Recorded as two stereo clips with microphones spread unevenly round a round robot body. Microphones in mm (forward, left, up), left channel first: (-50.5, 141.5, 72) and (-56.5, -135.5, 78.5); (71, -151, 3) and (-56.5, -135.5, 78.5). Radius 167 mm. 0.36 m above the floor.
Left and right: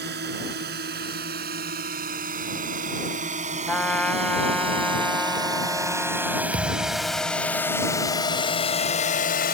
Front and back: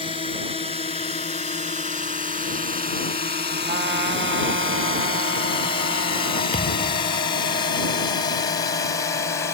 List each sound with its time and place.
0.0 s a drone: 35° right; by 9.6 s 35° left
3.7 s a trumpet: 175° left
6.5 s a thud: 30° right